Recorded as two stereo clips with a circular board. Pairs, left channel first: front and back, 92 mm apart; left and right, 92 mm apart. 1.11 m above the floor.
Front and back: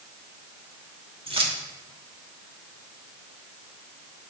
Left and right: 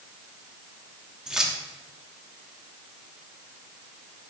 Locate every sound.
1.3 s keys jangling: 175° right, 1.4 m